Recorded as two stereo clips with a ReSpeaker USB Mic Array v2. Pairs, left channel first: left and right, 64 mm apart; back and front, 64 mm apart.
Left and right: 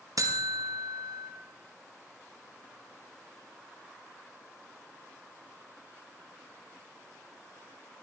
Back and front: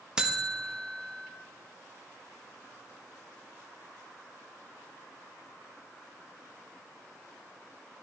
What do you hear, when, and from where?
0.2 s a buzzer: 75° right, 1.2 m